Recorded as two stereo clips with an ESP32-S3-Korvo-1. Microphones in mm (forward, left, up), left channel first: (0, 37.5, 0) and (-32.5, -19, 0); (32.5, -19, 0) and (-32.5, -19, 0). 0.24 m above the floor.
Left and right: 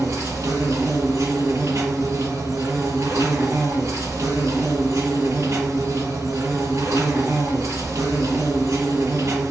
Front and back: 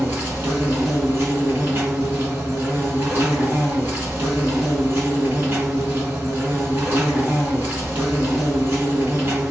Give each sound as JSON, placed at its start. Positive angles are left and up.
{"t": 0.0, "sound": "an insect", "azimuth_deg": -135, "distance_m": 1.6}